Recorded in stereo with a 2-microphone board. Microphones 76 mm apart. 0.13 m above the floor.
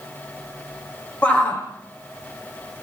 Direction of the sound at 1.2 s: 20° left (ahead or behind).